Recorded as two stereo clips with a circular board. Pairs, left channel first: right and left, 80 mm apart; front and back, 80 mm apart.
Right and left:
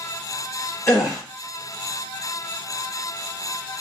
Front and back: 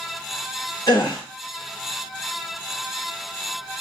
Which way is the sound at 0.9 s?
35° right.